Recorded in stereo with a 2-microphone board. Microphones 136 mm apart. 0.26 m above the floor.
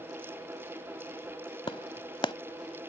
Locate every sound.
1.7 s a clap: 40° left (ahead or behind)